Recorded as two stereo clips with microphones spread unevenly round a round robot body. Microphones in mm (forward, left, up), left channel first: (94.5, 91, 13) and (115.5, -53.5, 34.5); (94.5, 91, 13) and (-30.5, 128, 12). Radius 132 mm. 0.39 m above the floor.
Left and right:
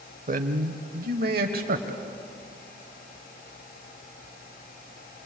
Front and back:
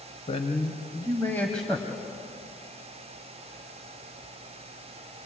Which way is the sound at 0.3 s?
60° right.